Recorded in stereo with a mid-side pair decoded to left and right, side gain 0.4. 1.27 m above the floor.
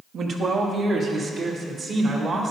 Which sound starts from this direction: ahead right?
A man speaking, at 0.1 s.